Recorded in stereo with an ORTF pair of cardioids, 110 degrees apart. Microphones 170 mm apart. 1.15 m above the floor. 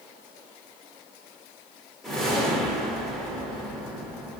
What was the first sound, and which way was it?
A whoosh, 5° left.